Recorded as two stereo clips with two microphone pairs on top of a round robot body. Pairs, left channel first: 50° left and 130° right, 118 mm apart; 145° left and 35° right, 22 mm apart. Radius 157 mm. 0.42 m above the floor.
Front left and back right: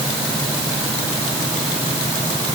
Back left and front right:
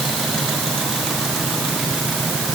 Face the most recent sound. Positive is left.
No sound to turn to.